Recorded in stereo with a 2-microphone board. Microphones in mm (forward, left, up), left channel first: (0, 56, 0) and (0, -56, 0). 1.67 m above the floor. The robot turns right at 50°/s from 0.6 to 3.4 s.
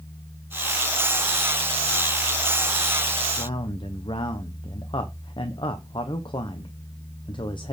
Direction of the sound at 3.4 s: 45° left (ahead or behind).